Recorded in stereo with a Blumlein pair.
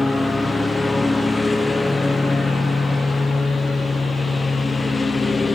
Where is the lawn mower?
10° left; by 5.5 s 15° left.